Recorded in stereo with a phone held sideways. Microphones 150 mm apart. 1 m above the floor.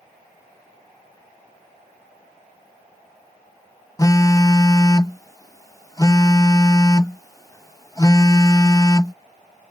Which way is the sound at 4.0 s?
25° left (ahead or behind).